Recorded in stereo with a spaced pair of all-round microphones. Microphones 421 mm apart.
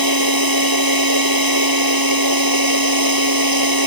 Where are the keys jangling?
No keys jangling in this recording.